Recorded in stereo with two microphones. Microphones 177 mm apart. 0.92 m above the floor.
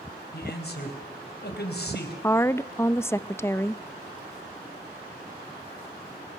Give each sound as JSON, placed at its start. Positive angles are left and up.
{"t": 0.3, "sound": "a man speaking", "side_deg": 70, "distance_m": 4.0}
{"t": 2.2, "sound": "a woman speaking", "side_deg": 15, "distance_m": 0.5}